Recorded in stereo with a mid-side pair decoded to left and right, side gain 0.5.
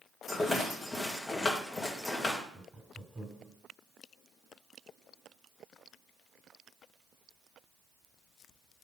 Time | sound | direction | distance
0.3 | a rattle | 15° left | 2 m
2.5 | laughter | 30° right | 3 m